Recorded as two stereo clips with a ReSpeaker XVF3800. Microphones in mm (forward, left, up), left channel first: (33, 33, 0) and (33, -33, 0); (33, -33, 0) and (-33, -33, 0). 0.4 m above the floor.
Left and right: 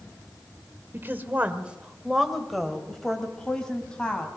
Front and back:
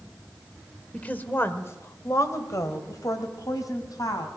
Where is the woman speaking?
60° right, 1.6 m; by 4.3 s 20° left, 3.5 m.